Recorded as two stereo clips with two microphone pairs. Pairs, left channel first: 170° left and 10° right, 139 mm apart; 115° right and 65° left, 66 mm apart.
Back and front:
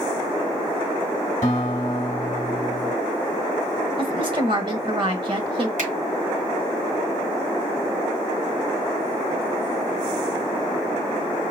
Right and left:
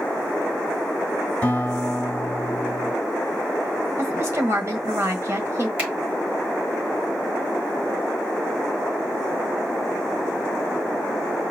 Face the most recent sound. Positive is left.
turn(degrees=-5)